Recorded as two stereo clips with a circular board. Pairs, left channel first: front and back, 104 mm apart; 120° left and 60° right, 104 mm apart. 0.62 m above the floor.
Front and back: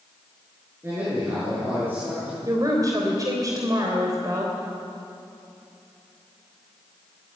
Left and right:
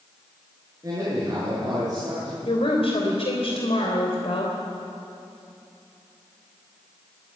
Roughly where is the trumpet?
I don't hear a trumpet.